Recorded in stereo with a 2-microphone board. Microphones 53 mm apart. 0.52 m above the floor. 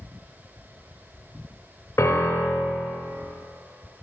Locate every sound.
2.0 s a piano: 65° left (ahead or behind), 0.7 m